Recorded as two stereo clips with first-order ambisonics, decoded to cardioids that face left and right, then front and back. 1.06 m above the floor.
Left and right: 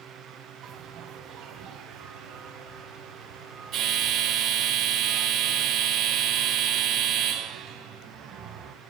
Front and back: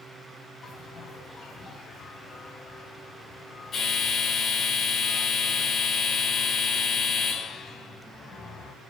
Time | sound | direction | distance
0.6 | a bell | 55° right | 1.2 m